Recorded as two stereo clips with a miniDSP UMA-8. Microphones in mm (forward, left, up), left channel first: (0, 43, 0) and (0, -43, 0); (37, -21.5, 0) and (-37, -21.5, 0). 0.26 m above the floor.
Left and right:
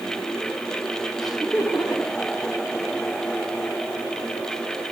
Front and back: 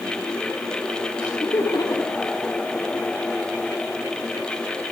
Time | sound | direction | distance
1.2 | laughter | straight ahead | 7.5 m